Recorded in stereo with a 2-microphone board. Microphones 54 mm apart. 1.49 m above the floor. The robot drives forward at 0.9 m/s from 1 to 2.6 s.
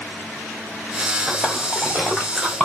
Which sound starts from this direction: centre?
A splash, at 1.3 s.